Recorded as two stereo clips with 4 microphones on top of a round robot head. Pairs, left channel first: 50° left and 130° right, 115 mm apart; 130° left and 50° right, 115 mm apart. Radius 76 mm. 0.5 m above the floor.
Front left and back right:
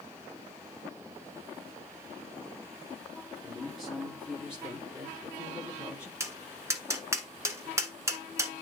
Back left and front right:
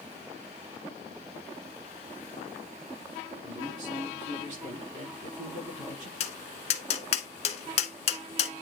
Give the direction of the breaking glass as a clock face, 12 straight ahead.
No breaking glass in this recording.